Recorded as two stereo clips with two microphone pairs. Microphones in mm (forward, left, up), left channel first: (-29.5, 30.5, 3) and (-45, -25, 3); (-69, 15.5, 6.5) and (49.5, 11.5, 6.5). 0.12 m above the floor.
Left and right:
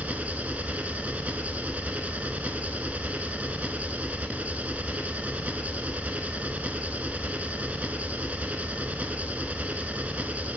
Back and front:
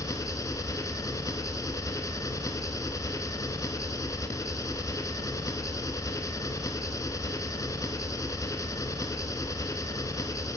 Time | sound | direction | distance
0.0 | an engine running | 150° right | 0.7 m